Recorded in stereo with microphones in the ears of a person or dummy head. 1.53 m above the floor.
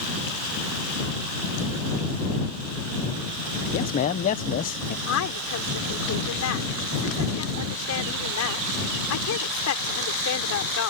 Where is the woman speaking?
90° left.